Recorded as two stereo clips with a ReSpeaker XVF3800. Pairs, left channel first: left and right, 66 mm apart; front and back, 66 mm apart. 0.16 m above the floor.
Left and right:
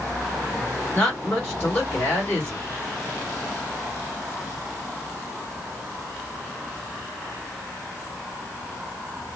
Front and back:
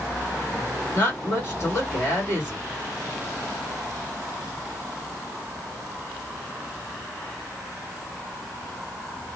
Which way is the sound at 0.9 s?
35° left.